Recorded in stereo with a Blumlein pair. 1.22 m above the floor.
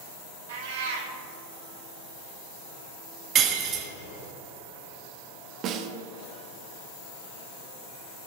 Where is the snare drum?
35° right, 1.0 m.